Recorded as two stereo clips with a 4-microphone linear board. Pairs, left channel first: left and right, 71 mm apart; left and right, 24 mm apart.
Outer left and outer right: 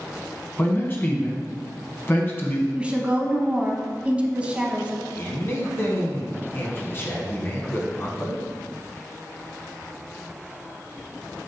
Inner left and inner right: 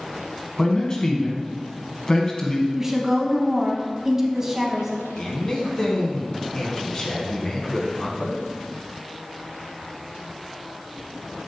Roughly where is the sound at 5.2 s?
Left.